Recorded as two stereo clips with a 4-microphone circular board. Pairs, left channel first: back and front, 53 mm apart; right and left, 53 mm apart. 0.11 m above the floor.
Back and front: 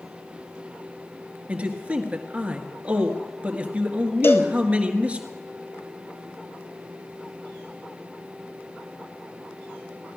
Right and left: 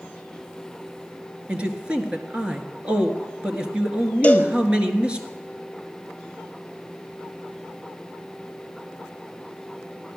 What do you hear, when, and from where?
1.5 s a man speaking: 40° left, 1.7 m
4.2 s a cowbell: 150° right, 1.4 m